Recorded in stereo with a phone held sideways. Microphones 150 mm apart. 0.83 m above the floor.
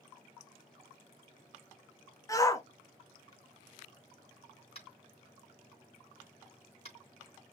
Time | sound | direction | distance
2.3 | a shout | 20° left (ahead or behind) | 0.8 m
4.8 | tapping | 45° left (ahead or behind) | 3.5 m